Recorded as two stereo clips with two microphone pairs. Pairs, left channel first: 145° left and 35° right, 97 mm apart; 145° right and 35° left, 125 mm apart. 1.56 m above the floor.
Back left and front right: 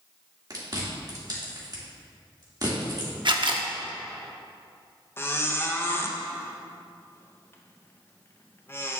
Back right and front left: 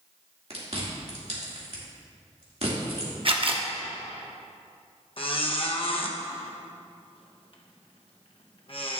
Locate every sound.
0.5 s chewing: 10° left, 2.5 m
3.2 s a camera shutter: 5° right, 0.9 m
5.2 s a squeak: 160° right, 0.9 m